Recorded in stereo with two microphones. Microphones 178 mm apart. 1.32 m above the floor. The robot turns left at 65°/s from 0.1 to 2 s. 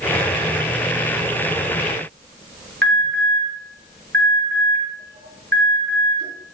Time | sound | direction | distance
2.8 | an alarm | 85° right | 3.5 m